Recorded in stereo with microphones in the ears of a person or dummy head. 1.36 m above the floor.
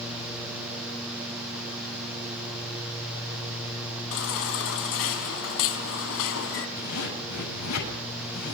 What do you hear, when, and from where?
4.1 s a baby crying: 70° left (ahead or behind), 4 m
6.8 s a zipper: 90° left, 8 m